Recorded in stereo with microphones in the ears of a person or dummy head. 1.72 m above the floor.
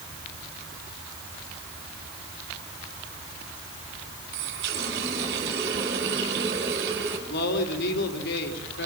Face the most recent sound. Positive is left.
turn(degrees=65)  # may be behind; listen again after turning